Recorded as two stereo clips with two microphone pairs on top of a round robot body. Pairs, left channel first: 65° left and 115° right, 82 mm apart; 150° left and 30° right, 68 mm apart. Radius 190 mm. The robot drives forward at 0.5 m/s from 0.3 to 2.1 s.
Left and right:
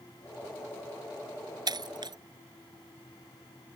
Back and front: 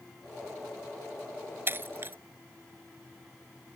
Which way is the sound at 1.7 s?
85° right.